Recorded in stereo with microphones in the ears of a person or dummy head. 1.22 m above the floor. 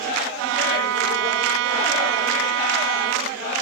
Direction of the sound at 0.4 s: 75° right (ahead or behind).